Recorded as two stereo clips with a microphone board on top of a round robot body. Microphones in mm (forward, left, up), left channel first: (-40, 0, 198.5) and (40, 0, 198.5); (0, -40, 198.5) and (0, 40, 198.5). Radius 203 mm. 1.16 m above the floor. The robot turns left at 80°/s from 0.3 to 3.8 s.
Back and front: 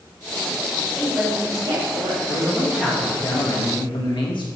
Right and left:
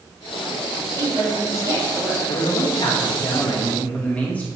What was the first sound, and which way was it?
A woman speaking, 95° left.